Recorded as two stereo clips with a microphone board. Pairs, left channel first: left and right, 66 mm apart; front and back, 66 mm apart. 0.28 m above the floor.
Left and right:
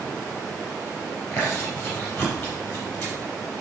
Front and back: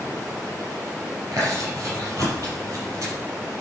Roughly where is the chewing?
Behind left.